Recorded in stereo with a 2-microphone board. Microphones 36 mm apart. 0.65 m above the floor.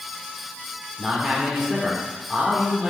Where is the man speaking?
5° left (ahead or behind), 2 m.